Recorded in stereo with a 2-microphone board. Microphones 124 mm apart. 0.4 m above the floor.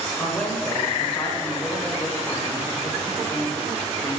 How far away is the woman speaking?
About 1.2 m.